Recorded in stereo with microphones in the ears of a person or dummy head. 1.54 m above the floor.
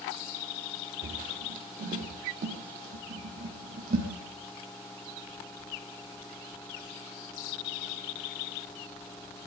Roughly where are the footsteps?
Right.